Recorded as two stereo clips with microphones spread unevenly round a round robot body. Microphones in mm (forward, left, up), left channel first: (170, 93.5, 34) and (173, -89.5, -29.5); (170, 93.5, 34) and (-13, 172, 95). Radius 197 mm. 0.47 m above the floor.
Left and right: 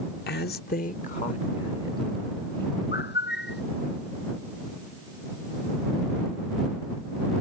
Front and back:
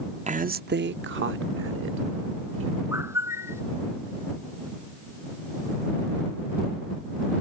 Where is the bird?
80° left.